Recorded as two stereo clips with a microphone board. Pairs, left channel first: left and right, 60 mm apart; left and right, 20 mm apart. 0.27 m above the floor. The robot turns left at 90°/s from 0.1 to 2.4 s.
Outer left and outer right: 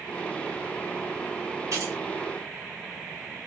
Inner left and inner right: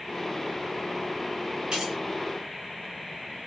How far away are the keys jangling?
About 2 m.